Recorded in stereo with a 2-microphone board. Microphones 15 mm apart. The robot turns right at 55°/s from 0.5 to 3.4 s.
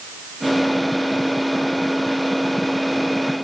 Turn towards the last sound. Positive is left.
No sound to turn to.